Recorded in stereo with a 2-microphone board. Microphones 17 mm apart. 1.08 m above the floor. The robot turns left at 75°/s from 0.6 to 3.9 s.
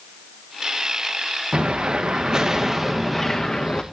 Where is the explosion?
80° right, 1.2 m; by 3.8 s 105° left, 1.2 m.